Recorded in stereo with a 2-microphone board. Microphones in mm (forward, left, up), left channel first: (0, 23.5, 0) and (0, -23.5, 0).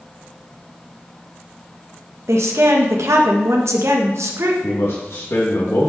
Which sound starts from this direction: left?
A man speaking, at 4.6 s.